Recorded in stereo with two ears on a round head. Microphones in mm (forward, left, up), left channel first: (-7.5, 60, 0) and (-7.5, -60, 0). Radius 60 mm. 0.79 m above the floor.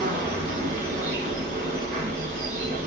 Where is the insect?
70° right (ahead or behind), 2 m.